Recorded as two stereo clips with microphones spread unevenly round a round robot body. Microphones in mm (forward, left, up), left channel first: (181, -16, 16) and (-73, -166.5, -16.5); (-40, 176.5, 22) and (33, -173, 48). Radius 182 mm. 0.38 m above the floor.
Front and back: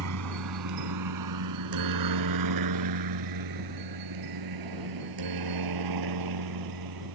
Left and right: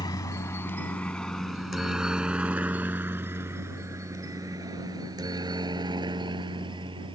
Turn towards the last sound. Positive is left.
turn(degrees=-155)